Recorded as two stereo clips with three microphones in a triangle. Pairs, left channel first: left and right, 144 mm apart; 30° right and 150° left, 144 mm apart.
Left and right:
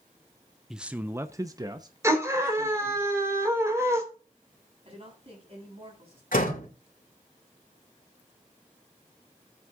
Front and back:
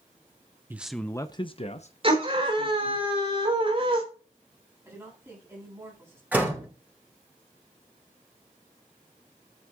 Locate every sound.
0.7 s a man speaking: 170° right, 0.7 m; by 3.0 s 30° right, 1.9 m
2.0 s a scream: 160° right, 4 m
4.8 s a woman speaking: 140° right, 8 m
6.3 s a door slam: 70° left, 3 m